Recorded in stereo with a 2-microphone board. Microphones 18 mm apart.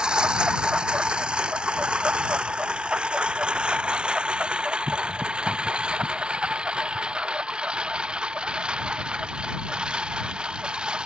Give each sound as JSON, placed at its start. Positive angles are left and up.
{"t": 0.0, "sound": "a lawn mower", "side_deg": -65}